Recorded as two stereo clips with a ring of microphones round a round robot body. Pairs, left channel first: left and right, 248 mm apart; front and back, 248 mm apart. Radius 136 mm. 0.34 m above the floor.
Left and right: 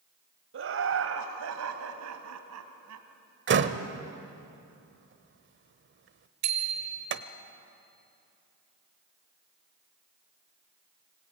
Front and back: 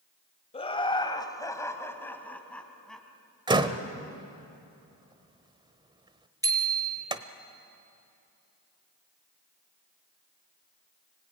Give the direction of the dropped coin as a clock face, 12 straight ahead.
I don't hear a dropped coin.